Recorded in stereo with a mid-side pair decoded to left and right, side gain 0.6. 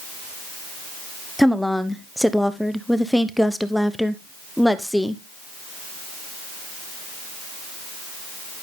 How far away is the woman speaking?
About 1.0 m.